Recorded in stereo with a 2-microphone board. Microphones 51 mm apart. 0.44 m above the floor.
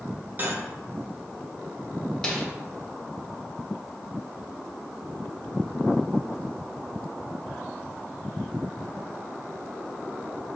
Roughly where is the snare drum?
Centre.